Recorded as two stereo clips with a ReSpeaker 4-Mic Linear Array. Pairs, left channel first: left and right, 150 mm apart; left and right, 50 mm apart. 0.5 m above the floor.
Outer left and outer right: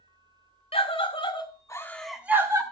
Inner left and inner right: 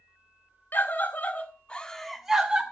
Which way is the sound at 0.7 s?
40° left (ahead or behind).